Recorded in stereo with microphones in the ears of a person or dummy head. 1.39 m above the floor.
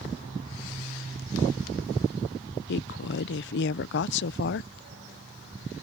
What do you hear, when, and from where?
2.7 s a woman speaking: 60° left (ahead or behind)